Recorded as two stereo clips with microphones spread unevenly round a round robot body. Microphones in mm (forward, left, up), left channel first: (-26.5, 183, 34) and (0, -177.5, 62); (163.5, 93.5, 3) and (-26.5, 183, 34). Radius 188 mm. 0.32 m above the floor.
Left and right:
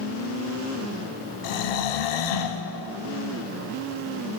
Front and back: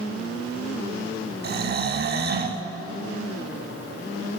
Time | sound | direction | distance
1.4 | snoring | 105° left | 0.7 m